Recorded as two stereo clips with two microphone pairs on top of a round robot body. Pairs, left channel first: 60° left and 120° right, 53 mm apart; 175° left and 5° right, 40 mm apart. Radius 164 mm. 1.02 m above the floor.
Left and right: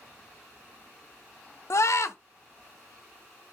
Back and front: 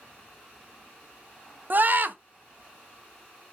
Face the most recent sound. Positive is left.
turn(degrees=35)